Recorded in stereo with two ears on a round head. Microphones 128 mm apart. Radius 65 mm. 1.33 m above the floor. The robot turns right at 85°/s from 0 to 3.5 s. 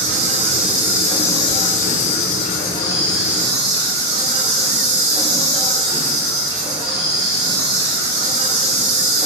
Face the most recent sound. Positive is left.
turn(degrees=-150)